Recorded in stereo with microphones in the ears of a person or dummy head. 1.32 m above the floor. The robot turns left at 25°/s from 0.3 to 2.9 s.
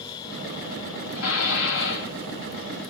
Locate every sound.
1.1 s dishes clattering: 80° left, 1.5 m; by 2.1 s 65° left (ahead or behind), 1.5 m